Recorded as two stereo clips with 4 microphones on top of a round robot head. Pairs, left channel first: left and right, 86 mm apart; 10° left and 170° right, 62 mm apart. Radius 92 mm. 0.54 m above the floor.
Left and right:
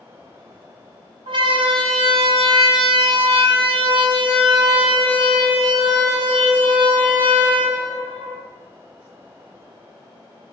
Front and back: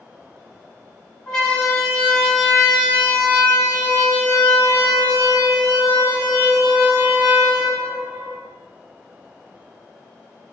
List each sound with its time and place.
1.3 s a siren: 75° right, 5 m; by 8.4 s 50° right, 8.5 m